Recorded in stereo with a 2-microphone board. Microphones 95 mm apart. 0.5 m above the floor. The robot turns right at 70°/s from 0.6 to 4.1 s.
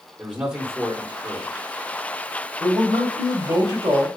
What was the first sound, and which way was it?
A man speaking, 25° right.